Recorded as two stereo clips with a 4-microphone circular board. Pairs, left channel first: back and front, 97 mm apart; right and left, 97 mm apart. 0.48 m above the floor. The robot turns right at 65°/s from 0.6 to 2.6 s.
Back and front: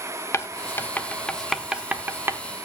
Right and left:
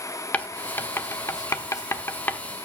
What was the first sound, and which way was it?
Writing, 150° right.